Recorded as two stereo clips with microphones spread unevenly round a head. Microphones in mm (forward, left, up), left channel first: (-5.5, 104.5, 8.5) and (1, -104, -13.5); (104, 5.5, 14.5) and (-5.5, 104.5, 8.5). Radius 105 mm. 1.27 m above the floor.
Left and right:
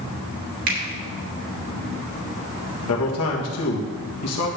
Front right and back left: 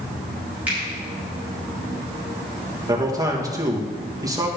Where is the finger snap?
140° right, 2.5 m.